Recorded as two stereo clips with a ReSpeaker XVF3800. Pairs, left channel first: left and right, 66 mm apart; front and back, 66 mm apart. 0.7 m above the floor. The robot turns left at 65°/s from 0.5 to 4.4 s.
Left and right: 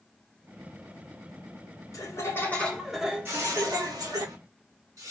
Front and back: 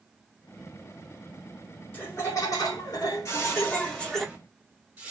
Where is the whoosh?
35° right, 1.7 m; by 5.1 s 110° right, 1.7 m.